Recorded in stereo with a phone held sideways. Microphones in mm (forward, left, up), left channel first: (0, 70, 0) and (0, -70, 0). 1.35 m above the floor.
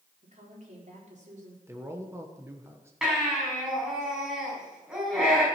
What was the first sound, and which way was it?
A woman speaking, 60° right (ahead or behind).